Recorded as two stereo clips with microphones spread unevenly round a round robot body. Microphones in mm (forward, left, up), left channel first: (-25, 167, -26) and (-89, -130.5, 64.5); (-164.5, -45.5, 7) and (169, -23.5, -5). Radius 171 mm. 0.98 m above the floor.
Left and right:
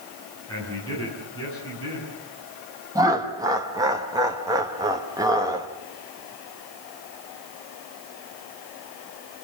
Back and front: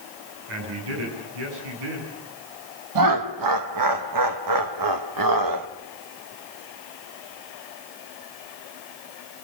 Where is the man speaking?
5° right, 7.5 m.